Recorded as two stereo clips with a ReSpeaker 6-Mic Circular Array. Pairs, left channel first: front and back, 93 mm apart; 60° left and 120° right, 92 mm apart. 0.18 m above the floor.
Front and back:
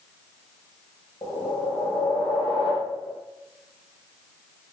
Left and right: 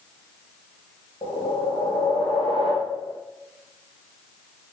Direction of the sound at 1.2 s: 40° left.